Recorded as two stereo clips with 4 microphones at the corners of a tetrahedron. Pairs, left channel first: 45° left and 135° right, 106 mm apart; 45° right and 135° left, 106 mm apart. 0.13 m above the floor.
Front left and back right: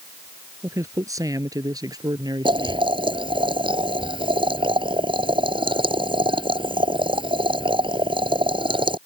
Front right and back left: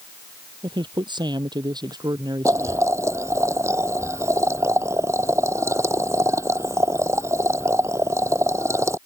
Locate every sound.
0.6 s a man speaking: 165° left; by 2.9 s straight behind
2.5 s boiling: 165° right